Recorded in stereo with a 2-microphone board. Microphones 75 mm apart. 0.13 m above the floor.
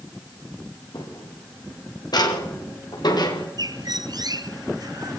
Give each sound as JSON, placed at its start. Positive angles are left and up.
{"t": 0.9, "sound": "footsteps", "side_deg": 60, "distance_m": 7.5}
{"t": 3.6, "sound": "a bird", "side_deg": -65, "distance_m": 1.4}